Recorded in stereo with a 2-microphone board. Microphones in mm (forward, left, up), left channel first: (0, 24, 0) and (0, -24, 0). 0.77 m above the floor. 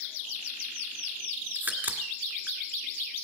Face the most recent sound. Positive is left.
turn(degrees=-35)  # may be behind; listen again after turning